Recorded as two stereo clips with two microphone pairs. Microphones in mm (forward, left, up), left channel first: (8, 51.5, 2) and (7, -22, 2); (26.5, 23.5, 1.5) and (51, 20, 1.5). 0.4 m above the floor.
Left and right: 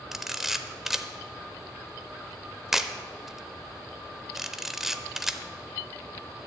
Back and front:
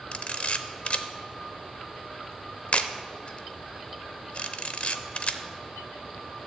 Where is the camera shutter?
Straight behind, 0.6 m.